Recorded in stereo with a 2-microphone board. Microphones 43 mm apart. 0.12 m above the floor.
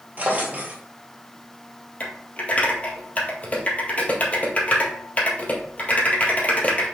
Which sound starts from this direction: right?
A drawer, at 0.2 s.